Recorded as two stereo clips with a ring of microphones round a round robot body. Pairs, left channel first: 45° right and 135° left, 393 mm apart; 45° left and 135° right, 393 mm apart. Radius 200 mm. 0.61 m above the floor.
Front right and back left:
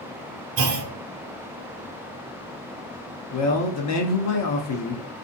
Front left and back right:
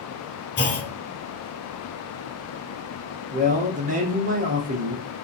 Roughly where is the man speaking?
Right.